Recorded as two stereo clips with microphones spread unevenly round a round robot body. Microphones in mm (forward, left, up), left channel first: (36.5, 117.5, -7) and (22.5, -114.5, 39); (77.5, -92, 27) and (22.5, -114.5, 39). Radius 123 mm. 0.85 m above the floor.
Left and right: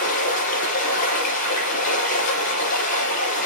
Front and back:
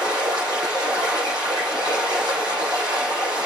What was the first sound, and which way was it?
Running water, 150° left.